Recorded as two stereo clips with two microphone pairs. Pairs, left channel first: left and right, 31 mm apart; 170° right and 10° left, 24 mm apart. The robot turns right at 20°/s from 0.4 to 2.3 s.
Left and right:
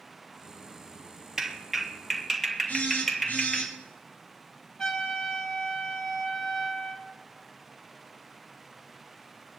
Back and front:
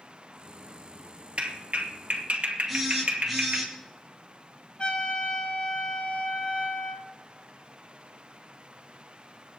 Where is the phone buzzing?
95° left, 4.5 m.